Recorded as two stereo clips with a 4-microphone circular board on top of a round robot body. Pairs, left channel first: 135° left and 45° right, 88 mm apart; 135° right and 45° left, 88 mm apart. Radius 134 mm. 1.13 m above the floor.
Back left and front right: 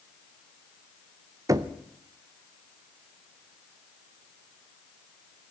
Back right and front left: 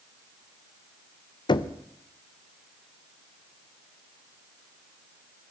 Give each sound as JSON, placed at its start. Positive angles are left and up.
{"t": 1.5, "sound": "knocking", "azimuth_deg": -100, "distance_m": 0.6}